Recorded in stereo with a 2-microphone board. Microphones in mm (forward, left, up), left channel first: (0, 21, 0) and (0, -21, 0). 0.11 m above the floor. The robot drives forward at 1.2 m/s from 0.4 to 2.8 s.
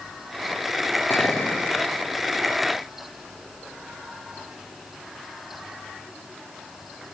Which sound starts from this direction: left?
A clink, at 1.1 s.